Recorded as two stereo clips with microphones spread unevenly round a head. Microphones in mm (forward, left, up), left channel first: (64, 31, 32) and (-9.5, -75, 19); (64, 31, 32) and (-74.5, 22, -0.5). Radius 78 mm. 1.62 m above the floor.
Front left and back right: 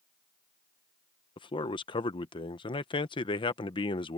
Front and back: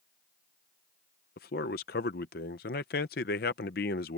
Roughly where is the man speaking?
Ahead.